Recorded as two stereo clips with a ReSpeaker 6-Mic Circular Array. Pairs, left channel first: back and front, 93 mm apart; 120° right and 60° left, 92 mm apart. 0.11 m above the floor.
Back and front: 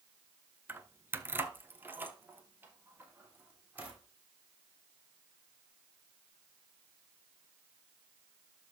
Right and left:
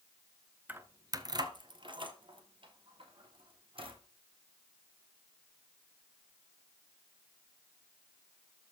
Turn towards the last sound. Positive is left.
turn(degrees=70)